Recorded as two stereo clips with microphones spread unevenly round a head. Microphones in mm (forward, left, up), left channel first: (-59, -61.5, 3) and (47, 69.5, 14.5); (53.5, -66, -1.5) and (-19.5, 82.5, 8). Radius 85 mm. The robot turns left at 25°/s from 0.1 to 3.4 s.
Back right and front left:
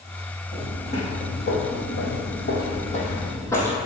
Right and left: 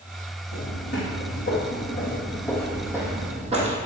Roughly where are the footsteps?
Ahead right.